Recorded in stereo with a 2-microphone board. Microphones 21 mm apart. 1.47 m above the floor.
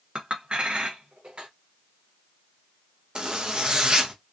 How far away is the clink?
About 0.7 m.